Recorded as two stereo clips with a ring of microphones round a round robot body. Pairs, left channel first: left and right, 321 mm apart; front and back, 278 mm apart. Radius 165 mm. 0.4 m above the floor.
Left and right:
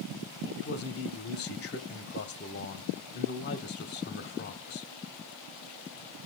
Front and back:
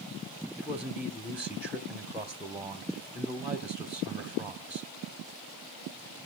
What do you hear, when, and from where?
0.6 s a man speaking: 100° left, 0.9 m